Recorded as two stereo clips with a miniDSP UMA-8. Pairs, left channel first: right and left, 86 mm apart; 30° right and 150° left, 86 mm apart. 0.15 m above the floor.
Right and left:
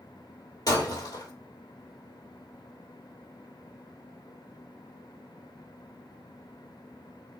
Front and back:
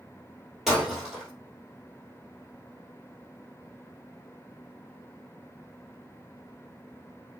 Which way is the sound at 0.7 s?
125° right.